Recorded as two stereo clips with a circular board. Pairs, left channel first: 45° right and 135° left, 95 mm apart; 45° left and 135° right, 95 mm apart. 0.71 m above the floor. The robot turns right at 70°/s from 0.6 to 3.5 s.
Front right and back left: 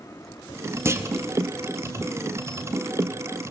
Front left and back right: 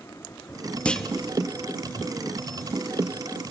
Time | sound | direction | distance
0.8 | a clunk | 110° left | 0.9 m